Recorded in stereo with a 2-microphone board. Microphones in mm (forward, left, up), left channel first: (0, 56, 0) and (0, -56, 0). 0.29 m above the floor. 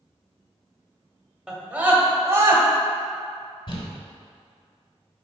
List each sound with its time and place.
1.5 s a scream: 5° right (ahead or behind), 1.4 m; by 2.6 s 30° right (ahead or behind), 1.5 m
3.7 s crumpling: 50° left (ahead or behind), 1.3 m